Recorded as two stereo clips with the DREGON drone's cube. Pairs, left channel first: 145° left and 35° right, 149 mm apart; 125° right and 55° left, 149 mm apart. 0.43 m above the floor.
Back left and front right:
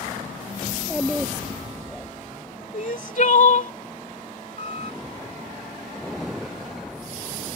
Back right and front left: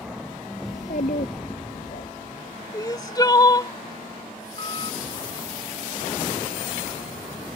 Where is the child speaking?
115° right; by 2.1 s 135° right.